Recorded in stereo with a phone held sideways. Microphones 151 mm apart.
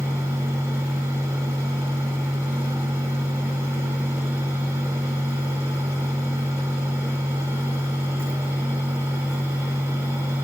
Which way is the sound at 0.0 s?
20° right (ahead or behind).